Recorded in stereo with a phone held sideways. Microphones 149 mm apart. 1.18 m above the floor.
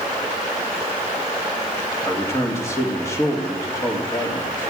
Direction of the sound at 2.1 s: 20° left (ahead or behind).